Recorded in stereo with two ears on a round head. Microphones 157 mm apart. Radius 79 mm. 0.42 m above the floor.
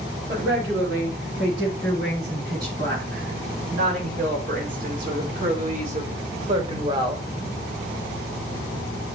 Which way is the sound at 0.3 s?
75° right (ahead or behind).